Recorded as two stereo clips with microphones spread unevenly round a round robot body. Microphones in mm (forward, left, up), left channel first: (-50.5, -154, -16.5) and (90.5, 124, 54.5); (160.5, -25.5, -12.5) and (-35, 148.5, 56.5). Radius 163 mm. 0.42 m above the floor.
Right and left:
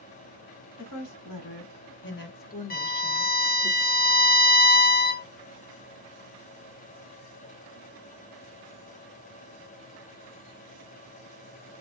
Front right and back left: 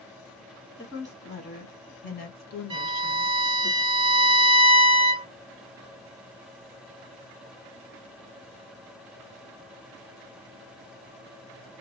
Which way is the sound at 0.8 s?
105° right.